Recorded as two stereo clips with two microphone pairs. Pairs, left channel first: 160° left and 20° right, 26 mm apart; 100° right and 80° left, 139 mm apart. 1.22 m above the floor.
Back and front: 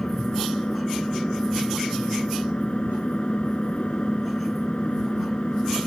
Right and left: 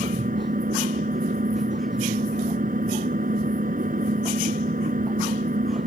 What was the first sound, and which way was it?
An engine running, 105° left.